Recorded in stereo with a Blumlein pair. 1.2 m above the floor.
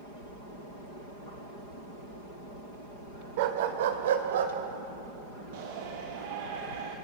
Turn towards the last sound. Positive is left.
turn(degrees=-50)